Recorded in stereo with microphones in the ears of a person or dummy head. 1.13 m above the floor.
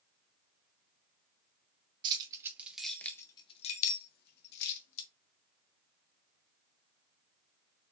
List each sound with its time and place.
2.0 s keys jangling: 25° right (ahead or behind), 0.9 m; by 5.1 s 70° left (ahead or behind), 1.2 m